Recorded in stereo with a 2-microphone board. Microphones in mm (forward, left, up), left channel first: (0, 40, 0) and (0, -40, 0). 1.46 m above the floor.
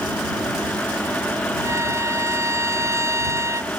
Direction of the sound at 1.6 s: 40° right (ahead or behind).